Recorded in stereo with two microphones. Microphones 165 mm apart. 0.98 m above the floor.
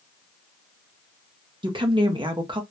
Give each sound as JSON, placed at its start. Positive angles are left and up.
{"t": 1.6, "sound": "a woman speaking", "side_deg": -30, "distance_m": 0.6}